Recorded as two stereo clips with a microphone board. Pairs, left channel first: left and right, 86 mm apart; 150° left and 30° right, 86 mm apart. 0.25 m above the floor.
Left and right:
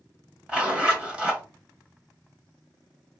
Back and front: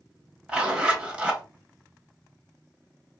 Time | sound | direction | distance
0.5 | a zipper | 55° right | 1.4 m